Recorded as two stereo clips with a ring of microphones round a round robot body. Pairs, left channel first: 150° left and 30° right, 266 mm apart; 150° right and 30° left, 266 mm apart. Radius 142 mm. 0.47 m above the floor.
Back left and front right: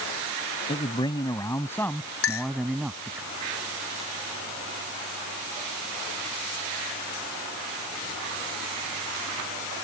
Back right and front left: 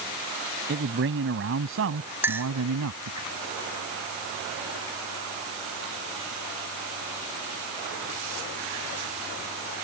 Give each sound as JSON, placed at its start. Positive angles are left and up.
{"t": 0.7, "sound": "a man speaking", "azimuth_deg": 80}
{"t": 2.2, "sound": "a clink", "azimuth_deg": 110}